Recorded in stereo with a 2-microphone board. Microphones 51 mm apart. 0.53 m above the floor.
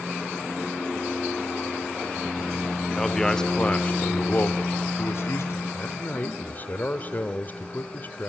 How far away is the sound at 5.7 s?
About 1.5 m.